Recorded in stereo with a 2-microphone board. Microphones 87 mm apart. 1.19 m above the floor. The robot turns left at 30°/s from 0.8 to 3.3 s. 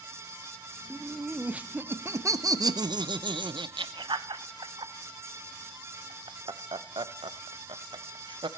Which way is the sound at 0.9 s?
5° left (ahead or behind).